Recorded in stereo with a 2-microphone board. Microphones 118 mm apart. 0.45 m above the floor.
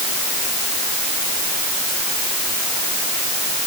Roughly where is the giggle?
I don't hear a giggle.